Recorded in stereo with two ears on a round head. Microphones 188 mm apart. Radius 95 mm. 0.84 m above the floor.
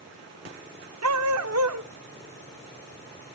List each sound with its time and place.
1.0 s a dog barking: 80° right, 1.0 m